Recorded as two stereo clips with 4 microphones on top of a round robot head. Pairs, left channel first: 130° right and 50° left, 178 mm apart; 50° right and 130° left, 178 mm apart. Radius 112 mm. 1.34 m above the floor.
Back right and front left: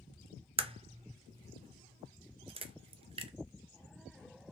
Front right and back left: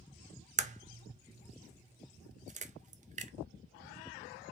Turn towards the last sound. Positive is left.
turn(degrees=100)